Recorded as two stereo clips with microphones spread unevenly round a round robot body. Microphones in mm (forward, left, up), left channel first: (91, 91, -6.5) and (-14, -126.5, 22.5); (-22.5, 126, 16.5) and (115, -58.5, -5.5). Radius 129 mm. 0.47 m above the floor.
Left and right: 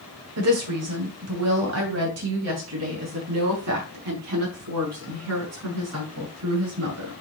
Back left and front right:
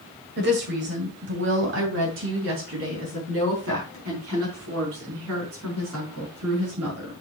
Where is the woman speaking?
95° right, 2 m.